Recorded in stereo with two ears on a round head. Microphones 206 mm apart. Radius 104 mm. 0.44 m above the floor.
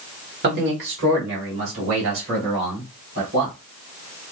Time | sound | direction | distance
0.4 | a man speaking | 50° right (ahead or behind) | 1.2 m